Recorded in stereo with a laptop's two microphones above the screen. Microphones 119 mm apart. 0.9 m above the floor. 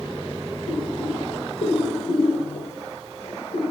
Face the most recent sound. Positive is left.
turn(degrees=70)  # may be behind; listen again after turning